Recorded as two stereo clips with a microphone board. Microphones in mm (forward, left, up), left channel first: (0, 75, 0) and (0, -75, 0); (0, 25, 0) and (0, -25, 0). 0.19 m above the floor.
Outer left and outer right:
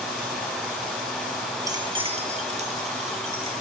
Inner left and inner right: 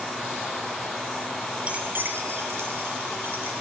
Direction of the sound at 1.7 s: 20° right (ahead or behind).